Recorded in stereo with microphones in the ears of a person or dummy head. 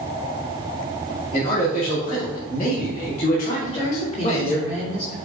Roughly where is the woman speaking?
Left.